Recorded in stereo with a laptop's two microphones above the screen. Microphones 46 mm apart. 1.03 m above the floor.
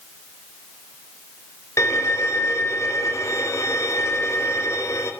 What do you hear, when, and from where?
1.8 s a violin: 80° left, 4 m